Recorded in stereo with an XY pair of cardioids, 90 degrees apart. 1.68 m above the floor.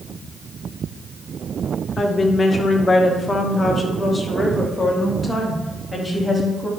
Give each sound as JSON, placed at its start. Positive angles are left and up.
{"t": 2.0, "sound": "a woman speaking", "azimuth_deg": 40, "distance_m": 1.9}